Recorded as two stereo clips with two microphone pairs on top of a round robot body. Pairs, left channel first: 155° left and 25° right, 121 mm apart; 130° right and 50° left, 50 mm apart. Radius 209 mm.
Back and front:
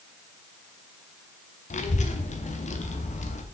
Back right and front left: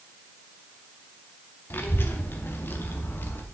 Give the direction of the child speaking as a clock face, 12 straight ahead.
6 o'clock.